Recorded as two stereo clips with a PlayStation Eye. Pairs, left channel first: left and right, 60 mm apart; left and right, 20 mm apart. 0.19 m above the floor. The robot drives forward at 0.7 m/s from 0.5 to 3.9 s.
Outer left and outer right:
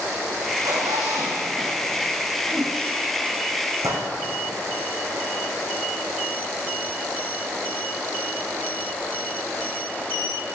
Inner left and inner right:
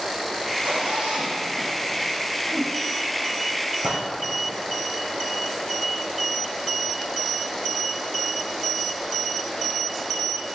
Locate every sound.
0.5 s a zipper: 85° right, 4 m; by 2.3 s 75° right (ahead or behind), 4 m
2.5 s a whoosh: 10° right (ahead or behind), 0.6 m
3.8 s a gunshot: 65° right (ahead or behind), 2.5 m